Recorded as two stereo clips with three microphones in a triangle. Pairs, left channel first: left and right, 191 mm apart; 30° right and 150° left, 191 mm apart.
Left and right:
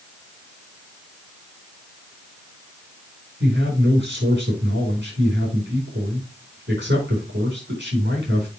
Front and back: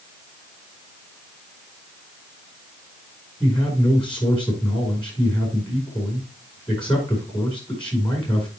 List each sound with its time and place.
3.4 s a man speaking: 95° right, 5 m